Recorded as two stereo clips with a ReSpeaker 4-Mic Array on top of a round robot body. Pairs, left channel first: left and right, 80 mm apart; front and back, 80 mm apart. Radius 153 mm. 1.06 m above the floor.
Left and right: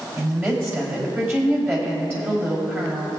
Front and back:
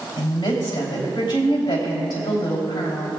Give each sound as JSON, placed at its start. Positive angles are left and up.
{"t": 0.2, "sound": "a woman speaking", "azimuth_deg": -30, "distance_m": 3.5}